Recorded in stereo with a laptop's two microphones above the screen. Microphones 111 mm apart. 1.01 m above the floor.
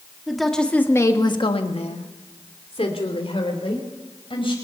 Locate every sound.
0.3 s a woman speaking: centre (ahead or behind), 2 m; by 4.5 s 55° left (ahead or behind), 5 m